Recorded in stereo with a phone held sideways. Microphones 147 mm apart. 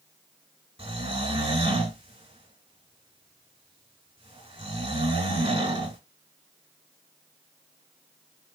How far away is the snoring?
About 3 m.